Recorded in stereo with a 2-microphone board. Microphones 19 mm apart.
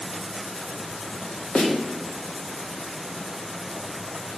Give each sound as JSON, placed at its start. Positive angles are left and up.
{"t": 1.6, "sound": "a snare drum", "side_deg": 80, "distance_m": 2.0}